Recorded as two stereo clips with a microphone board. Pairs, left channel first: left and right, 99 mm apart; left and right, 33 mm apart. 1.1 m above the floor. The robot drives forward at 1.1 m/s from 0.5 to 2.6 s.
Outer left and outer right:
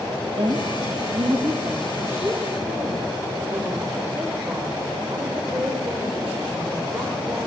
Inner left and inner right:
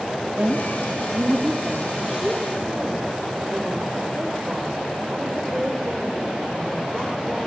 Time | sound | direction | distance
0.4 | a woman speaking | 70° right (ahead or behind) | 1.6 m